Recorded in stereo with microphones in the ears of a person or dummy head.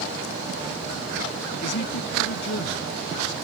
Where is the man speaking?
65° left (ahead or behind).